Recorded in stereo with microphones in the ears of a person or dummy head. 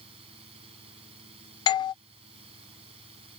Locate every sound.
0.0 s a fan: 30° right (ahead or behind)
1.7 s a doorbell: 25° left (ahead or behind)